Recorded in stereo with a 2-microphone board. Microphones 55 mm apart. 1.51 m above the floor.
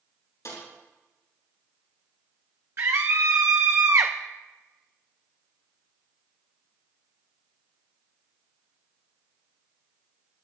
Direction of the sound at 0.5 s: 75° left (ahead or behind).